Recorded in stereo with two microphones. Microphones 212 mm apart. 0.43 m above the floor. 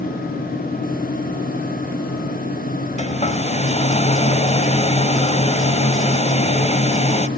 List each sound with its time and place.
3.0 s a hair dryer: 30° left (ahead or behind), 1.3 m